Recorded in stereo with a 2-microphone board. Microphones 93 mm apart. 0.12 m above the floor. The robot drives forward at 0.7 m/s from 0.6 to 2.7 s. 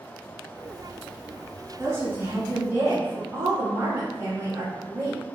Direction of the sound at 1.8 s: 25° right (ahead or behind).